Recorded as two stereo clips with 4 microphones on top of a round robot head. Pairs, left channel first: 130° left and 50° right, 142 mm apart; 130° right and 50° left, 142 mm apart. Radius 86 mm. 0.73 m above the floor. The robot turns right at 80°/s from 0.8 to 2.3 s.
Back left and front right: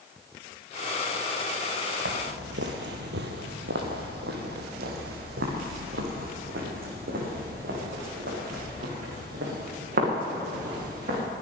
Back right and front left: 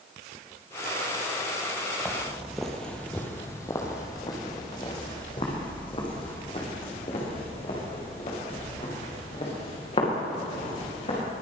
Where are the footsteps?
45° right, 1.1 m; by 11.2 s 80° right, 6 m.